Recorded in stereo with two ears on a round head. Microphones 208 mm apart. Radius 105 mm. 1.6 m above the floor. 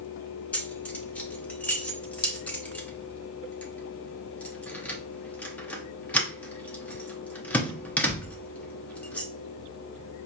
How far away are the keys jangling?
About 0.7 m.